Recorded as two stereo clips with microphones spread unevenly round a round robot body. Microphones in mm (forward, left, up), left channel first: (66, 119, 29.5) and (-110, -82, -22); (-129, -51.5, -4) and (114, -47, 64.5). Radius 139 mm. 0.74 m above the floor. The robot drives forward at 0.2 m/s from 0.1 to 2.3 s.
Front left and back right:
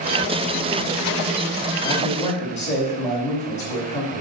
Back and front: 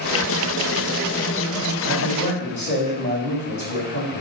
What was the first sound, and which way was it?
A man speaking, 115° left.